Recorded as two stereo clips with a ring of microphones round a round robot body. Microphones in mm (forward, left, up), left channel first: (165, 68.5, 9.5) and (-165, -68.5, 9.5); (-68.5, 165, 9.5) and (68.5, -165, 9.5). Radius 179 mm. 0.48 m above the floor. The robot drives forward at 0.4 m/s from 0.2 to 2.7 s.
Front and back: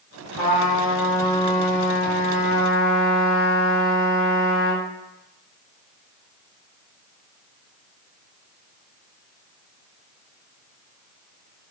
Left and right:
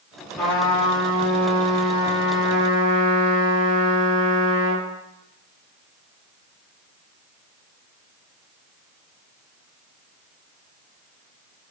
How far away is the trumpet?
About 1.9 m.